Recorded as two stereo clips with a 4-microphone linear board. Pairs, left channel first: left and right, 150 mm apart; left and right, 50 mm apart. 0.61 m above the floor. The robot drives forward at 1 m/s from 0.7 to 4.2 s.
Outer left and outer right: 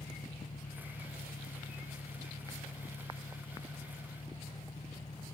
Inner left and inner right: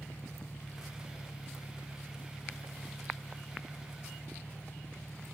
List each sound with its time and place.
0.0 s an engine running: 55° left (ahead or behind); by 5.3 s 45° left (ahead or behind)